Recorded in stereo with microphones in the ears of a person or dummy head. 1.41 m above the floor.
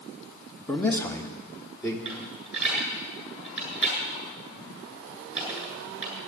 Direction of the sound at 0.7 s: 10° left (ahead or behind).